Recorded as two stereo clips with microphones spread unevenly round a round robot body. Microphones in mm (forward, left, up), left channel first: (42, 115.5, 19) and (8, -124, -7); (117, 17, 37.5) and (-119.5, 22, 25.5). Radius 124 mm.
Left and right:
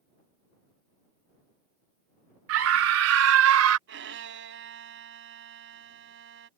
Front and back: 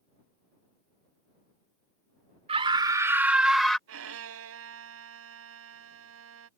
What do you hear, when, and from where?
2.5 s a scream: 120° right; by 3.8 s 90° right
3.9 s a violin: 145° right